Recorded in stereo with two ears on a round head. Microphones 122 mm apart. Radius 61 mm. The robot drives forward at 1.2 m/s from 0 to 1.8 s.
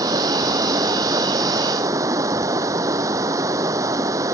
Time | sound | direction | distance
0.0 | running water | 25° right (ahead or behind) | ?